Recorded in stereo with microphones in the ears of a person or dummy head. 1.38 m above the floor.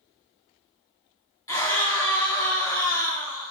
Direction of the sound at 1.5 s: 20° left (ahead or behind).